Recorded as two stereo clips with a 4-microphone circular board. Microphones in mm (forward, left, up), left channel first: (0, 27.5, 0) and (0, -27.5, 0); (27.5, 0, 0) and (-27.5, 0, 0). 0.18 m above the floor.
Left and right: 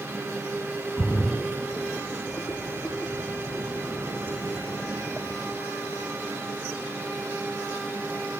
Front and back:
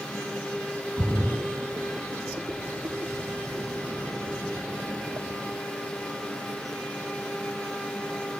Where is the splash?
155° left, 2.5 m.